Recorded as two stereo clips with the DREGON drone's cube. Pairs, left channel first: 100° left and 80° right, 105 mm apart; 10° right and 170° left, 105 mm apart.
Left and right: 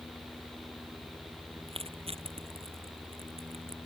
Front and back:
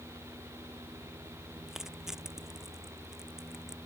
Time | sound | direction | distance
1.7 | crushing | 105° right | ?